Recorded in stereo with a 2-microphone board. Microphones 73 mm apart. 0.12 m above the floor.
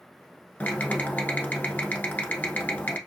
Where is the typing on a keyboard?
25° left (ahead or behind), 0.9 m.